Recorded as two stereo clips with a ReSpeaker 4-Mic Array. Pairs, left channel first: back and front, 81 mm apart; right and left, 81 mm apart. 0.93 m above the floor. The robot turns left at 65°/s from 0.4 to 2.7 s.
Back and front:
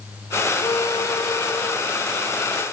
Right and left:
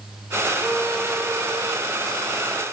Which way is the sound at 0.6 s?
175° right.